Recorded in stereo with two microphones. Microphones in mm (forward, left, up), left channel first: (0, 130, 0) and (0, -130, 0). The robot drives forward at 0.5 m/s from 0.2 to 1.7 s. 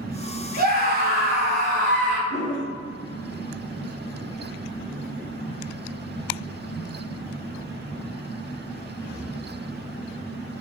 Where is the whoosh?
40° right (ahead or behind), 1.6 m.